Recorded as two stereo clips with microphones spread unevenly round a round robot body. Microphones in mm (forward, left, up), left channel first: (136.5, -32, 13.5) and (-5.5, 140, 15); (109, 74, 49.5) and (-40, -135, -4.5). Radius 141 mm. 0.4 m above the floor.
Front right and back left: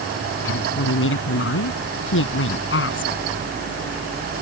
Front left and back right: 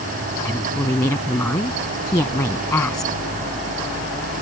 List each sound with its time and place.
0.5 s a woman speaking: 25° right